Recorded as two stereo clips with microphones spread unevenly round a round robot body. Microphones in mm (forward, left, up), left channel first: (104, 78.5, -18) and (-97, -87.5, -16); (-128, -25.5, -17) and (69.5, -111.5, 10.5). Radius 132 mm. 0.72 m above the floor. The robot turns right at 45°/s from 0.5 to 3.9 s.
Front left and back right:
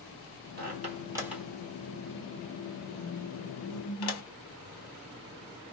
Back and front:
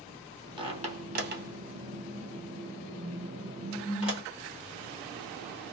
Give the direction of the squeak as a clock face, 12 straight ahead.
3 o'clock.